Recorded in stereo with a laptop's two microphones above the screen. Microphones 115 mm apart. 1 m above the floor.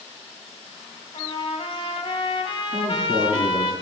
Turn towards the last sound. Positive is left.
turn(degrees=-75)  # may be behind; listen again after turning